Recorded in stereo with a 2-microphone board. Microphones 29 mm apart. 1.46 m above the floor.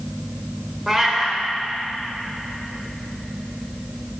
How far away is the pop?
No pop in this recording.